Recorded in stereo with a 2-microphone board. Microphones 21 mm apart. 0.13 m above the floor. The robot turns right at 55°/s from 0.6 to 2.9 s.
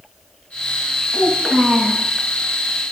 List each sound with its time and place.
1.1 s a child speaking: 130° right, 7.5 m; by 2.0 s 80° right, 7.5 m